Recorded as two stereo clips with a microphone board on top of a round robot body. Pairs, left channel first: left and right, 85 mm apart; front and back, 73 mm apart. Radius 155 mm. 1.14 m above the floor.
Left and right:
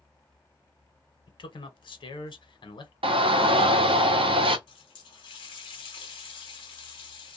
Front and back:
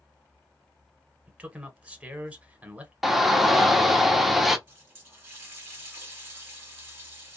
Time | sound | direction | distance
1.3 | a man speaking | 110° left | 1.0 m
3.0 | a shout | 90° right | 0.8 m
4.7 | a running tap | 115° left | 0.8 m